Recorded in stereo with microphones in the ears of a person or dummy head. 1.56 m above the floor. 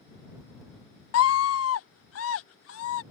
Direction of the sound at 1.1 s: 80° left.